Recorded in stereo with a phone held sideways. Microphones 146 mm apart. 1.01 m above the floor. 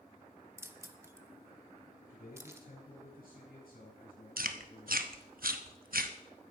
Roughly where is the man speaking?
Left.